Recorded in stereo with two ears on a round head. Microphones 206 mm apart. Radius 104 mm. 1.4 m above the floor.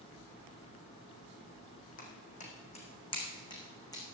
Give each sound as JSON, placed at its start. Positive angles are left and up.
{"t": 2.0, "sound": "footsteps", "side_deg": 35, "distance_m": 4.5}